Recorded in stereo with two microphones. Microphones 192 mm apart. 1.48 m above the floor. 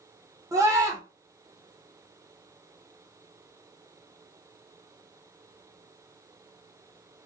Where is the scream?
15° right (ahead or behind), 0.7 m.